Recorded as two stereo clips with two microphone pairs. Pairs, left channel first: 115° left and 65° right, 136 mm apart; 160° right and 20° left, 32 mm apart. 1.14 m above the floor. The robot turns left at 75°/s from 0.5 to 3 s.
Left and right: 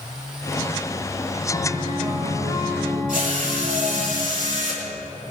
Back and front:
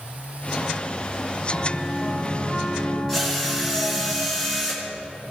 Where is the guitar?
60° right, 5 m; by 4.1 s 170° right, 5 m.